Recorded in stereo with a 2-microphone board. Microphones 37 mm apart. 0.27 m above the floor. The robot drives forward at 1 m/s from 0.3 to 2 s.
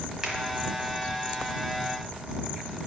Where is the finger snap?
15° right (ahead or behind), 1.4 m.